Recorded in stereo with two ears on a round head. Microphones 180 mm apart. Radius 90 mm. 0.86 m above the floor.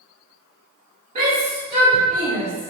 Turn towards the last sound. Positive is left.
turn(degrees=-25)  # may be behind; listen again after turning